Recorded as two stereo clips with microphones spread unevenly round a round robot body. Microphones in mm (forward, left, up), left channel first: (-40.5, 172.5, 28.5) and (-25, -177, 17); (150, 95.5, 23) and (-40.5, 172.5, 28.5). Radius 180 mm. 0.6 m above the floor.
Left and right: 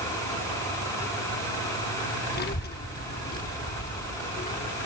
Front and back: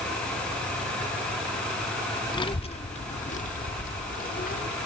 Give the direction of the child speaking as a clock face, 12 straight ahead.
11 o'clock.